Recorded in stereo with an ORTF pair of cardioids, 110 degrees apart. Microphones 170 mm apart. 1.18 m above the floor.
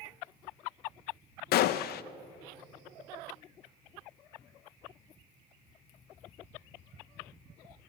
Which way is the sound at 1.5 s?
70° left.